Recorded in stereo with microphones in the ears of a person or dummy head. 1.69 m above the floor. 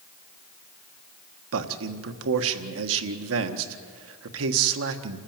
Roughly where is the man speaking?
Right.